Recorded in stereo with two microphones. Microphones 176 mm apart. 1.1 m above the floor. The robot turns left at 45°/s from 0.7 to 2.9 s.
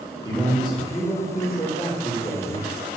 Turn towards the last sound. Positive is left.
turn(degrees=55)